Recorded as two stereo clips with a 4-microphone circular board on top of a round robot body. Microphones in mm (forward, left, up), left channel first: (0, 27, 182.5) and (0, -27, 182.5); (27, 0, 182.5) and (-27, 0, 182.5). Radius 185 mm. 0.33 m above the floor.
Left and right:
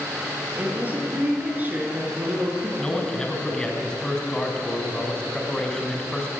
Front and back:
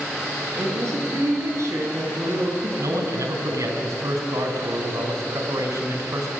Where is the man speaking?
165° left, 4 m.